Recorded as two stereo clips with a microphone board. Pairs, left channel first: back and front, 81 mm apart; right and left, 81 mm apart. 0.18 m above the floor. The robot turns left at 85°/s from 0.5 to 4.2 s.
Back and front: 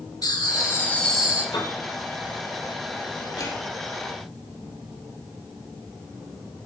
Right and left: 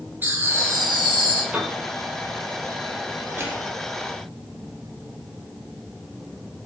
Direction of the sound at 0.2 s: 155° left.